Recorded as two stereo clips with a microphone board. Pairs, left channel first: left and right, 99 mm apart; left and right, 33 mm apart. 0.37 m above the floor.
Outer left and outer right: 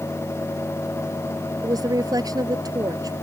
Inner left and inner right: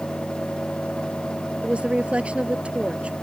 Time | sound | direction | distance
1.6 | a woman speaking | 40° right (ahead or behind) | ?